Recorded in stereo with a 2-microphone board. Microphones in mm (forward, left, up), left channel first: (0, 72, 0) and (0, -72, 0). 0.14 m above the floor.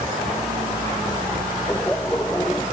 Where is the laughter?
10° left (ahead or behind).